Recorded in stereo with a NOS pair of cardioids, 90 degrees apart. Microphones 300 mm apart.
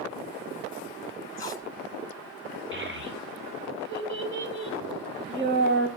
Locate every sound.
1.4 s tape being pulled: 10° left, 1.8 m
2.7 s a child speaking: 40° right, 4.5 m